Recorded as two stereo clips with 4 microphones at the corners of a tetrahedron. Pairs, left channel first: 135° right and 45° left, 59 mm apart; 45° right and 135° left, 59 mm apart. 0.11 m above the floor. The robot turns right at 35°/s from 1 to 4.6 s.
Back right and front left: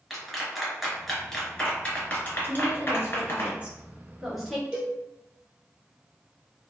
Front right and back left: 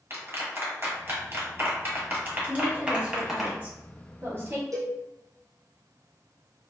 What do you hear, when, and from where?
0.1 s a clap: 135° left, 1.4 m; by 3.5 s 135° right, 1.4 m
2.5 s a woman speaking: 60° left, 1.3 m; by 4.6 s 135° left, 1.3 m
4.7 s a cowbell: 120° left, 1.1 m